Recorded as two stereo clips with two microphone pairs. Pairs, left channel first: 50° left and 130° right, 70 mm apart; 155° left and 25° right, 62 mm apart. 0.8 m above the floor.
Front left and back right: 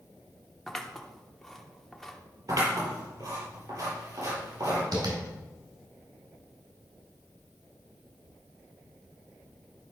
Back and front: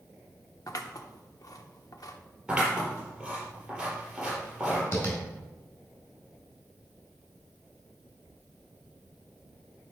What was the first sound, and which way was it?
Scissors, 135° left.